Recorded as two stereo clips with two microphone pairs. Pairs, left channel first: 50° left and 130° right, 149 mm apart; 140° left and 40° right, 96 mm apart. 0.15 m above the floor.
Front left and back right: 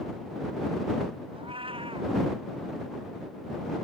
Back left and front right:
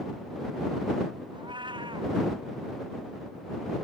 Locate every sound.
1.3 s a cat meowing: 75° right